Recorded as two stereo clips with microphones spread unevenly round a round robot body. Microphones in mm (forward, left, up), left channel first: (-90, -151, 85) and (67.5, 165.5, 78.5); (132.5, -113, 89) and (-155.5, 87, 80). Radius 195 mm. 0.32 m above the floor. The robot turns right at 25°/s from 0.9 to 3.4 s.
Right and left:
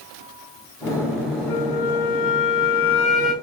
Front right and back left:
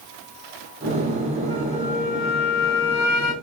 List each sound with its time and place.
1.5 s a flute: 110° right, 3 m; by 3.3 s 60° right, 3 m